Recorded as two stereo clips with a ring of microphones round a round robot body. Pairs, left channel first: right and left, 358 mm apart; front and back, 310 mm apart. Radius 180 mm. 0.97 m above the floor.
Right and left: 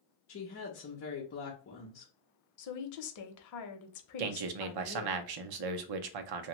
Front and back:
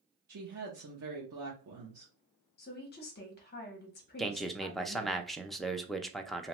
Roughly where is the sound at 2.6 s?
Ahead right.